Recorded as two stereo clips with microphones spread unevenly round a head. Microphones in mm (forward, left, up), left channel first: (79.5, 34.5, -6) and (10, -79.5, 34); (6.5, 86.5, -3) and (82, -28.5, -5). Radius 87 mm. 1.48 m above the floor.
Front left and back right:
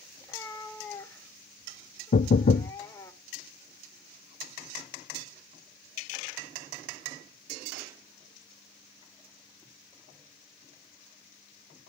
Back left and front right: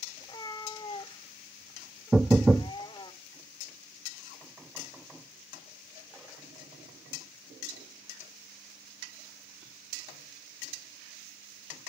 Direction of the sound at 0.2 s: 145° left.